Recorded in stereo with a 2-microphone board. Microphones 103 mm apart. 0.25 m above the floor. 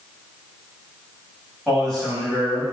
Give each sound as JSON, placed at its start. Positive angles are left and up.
{"t": 1.7, "sound": "a man speaking", "side_deg": 5, "distance_m": 1.6}